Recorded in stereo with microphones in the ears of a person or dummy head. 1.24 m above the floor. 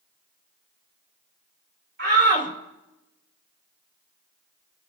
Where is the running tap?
No running tap in this recording.